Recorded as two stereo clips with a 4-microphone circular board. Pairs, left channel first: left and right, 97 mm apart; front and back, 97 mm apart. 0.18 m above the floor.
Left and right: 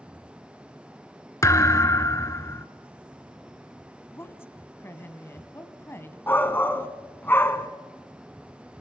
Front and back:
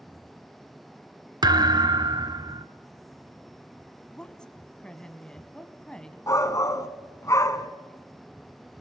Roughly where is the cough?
I don't hear a cough.